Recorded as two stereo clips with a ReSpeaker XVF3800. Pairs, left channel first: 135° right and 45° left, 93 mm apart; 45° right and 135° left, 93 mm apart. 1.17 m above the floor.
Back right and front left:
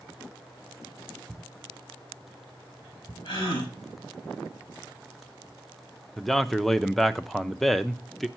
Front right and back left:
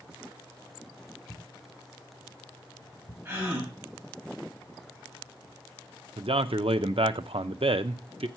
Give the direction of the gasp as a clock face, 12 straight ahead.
5 o'clock.